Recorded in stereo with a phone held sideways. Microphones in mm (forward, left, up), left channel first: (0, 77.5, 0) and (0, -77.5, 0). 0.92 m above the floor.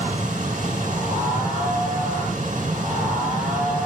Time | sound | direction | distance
0.0 | a machine running | 55° right (ahead or behind) | 4 m